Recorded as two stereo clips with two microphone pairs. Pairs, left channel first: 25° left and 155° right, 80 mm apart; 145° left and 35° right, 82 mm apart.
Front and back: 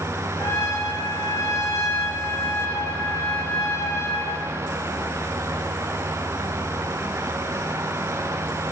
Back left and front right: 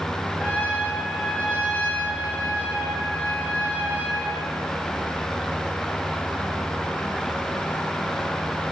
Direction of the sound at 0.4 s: 75° left.